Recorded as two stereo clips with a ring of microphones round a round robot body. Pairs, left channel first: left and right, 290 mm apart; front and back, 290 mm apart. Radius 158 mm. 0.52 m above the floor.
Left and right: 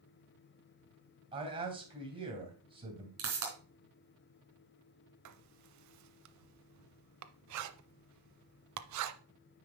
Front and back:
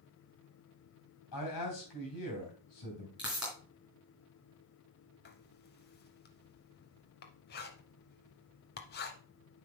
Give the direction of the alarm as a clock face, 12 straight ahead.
No alarm in this recording.